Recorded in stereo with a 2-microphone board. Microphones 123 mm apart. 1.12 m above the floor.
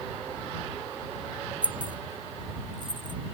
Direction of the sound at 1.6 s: 40° right (ahead or behind).